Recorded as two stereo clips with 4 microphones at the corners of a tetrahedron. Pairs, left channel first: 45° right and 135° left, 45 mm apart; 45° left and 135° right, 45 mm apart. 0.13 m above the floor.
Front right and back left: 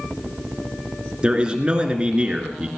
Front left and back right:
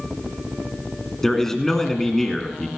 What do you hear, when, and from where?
1.2 s a man speaking: 115° left, 1.8 m